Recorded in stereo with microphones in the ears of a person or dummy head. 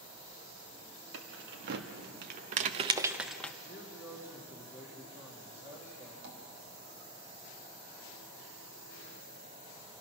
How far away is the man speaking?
About 2.5 m.